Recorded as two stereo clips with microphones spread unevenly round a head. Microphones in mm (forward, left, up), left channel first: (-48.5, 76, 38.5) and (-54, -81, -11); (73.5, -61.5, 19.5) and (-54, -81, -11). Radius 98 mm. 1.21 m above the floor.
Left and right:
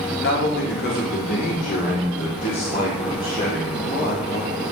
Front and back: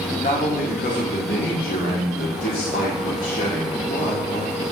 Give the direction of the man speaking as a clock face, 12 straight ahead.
10 o'clock.